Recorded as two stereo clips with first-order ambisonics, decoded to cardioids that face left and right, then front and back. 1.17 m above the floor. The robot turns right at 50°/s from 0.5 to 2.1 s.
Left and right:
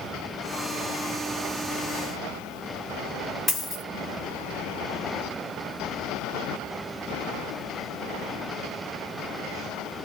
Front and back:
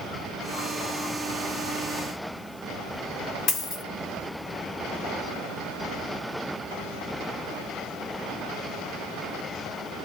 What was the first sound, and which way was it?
A dropped coin, 20° left.